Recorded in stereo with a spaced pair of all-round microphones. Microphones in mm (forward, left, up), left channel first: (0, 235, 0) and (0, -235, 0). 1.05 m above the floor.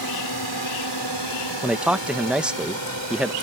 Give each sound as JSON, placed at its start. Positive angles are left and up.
{"t": 0.0, "sound": "a drone", "side_deg": 50}
{"t": 1.6, "sound": "a man speaking", "side_deg": 0}